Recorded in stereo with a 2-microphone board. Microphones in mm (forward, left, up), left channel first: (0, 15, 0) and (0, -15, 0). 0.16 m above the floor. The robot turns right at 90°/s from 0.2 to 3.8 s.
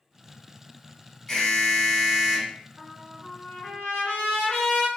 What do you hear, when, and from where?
1.3 s an alarm: 10° left (ahead or behind), 1.2 m; by 2.5 s 20° right (ahead or behind), 1.2 m
2.8 s a trumpet: 5° right, 1.7 m; by 4.9 s 90° left, 1.7 m